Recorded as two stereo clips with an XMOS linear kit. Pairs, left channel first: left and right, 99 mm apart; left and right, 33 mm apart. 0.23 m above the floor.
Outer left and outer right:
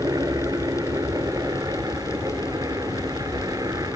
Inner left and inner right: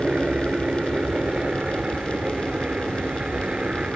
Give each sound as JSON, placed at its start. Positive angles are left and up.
{"t": 0.0, "sound": "a helicopter", "side_deg": -35}